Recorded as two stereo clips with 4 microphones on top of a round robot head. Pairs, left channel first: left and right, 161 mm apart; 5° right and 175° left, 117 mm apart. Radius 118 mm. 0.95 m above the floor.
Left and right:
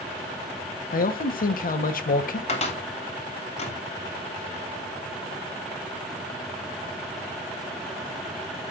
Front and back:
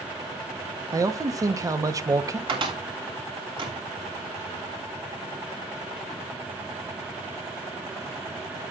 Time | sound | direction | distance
0.9 | a man speaking | 115° left | 1.1 m
2.5 | a cupboard door | 135° left | 2.5 m